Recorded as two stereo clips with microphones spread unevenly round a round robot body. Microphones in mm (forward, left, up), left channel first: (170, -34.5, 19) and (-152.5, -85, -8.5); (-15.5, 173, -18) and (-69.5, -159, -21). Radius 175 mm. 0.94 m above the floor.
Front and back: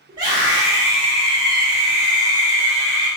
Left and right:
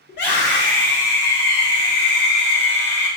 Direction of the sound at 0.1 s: 125° left.